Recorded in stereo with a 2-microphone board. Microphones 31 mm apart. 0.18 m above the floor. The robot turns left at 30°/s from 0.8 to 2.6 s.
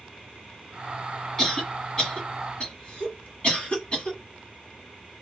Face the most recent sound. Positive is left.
turn(degrees=35)  # may be behind; listen again after turning